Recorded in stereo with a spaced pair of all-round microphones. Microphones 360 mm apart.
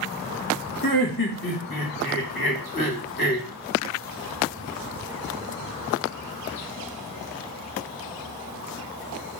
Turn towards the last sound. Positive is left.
turn(degrees=80)